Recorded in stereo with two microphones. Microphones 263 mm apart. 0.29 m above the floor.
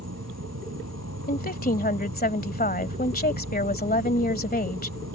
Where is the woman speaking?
35° left (ahead or behind).